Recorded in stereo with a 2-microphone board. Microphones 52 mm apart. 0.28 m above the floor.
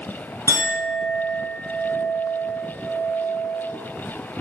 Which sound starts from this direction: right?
A clink, at 0.5 s.